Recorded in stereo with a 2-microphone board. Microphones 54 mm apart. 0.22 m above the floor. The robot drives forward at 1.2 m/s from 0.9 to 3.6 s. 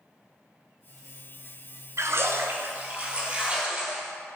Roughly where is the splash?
Right.